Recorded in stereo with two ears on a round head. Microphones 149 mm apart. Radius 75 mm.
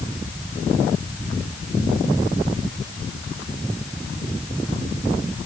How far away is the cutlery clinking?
No cutlery clinking in this recording.